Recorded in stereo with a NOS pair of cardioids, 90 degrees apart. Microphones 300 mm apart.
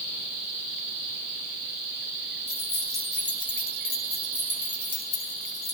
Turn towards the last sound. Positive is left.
turn(degrees=65)